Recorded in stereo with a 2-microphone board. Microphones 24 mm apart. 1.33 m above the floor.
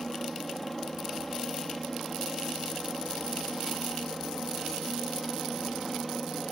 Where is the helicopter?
10° left (ahead or behind).